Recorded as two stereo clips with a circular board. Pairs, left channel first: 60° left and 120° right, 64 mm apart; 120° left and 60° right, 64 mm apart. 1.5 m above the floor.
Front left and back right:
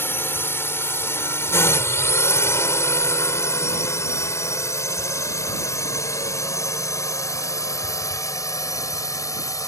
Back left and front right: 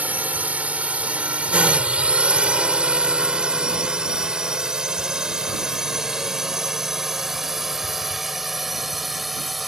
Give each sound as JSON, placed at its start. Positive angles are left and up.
{"t": 0.0, "sound": "a drone", "azimuth_deg": 5}